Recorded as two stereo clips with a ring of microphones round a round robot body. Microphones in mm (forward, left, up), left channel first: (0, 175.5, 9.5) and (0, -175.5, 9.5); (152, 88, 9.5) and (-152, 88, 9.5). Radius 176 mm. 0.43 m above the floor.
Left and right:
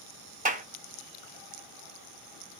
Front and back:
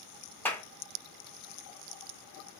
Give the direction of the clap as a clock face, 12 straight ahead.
2 o'clock.